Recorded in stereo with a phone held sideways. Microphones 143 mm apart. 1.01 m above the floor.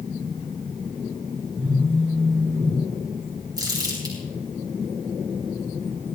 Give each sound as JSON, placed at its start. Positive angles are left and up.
{"t": 1.6, "sound": "a phone buzzing", "side_deg": -15, "distance_m": 7.5}
{"t": 3.6, "sound": "crumpling", "side_deg": -30, "distance_m": 7.0}